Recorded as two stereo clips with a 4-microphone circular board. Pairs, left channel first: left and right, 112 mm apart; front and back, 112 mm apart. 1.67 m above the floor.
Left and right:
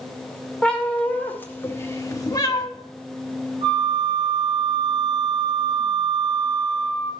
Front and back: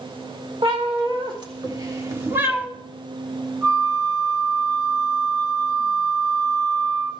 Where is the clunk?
No clunk in this recording.